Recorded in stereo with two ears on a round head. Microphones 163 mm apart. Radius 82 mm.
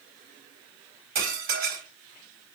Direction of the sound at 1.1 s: 60° right (ahead or behind).